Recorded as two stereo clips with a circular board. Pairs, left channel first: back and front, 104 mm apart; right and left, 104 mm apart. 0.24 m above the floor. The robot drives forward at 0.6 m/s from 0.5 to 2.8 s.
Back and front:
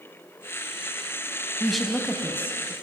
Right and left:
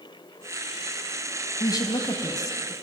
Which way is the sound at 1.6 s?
85° right.